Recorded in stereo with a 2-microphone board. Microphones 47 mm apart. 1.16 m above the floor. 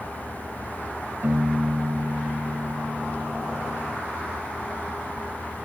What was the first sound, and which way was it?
A piano, 50° right (ahead or behind).